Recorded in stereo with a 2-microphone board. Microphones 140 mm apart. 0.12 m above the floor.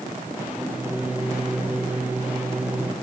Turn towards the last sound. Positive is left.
turn(degrees=-10)  # may be behind; listen again after turning